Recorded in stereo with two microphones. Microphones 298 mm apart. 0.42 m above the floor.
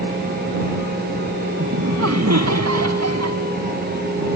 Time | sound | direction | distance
1.6 | laughter | 60° right (ahead or behind) | ?